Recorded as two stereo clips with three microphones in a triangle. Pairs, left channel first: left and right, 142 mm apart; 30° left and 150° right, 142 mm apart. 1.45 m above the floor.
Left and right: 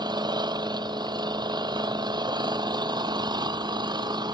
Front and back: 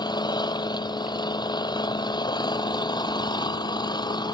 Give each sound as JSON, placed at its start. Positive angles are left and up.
{"t": 0.0, "sound": "an engine running", "azimuth_deg": -30}